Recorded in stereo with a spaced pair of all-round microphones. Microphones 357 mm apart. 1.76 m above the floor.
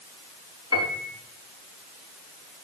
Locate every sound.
0.7 s a piano: 45° left (ahead or behind), 4.5 m